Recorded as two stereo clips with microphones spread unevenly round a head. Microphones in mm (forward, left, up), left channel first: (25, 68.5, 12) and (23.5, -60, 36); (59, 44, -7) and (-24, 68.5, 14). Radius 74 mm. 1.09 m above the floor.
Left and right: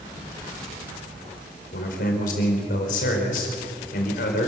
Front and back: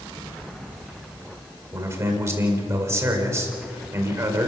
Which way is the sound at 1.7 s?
110° left.